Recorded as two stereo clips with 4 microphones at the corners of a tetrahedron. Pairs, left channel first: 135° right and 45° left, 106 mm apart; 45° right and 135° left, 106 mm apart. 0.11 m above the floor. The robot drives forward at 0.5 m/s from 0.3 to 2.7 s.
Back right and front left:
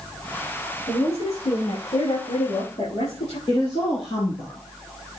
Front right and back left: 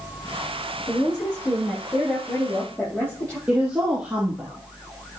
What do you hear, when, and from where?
0.9 s a woman speaking: 110° right, 6 m; by 3.4 s 120° right, 6.5 m
3.5 s a woman speaking: 150° right, 2.5 m